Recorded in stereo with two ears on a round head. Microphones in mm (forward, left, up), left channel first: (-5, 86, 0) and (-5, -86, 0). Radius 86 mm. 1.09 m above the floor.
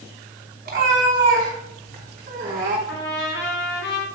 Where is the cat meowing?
45° right (ahead or behind), 3.5 m.